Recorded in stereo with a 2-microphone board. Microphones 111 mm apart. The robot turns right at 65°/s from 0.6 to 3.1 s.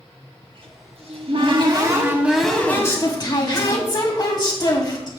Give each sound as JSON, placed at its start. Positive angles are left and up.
{"t": 0.4, "sound": "a cupboard door", "azimuth_deg": -120, "distance_m": 1.9}